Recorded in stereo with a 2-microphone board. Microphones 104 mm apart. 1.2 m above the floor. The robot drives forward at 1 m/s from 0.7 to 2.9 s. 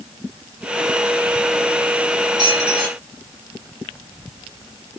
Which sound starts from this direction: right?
A squeak, at 2.4 s.